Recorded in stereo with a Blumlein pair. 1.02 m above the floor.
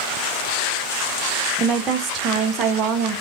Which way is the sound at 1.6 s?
30° right.